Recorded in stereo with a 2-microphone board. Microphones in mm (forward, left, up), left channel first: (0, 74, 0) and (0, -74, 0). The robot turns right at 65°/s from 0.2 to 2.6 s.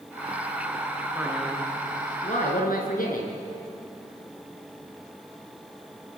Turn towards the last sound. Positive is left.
turn(degrees=75)